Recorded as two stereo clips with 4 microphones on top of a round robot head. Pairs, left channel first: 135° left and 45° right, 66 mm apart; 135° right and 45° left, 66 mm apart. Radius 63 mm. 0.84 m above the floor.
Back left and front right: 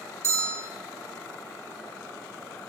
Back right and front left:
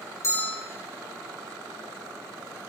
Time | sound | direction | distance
0.2 | a bell | 90° right | 0.9 m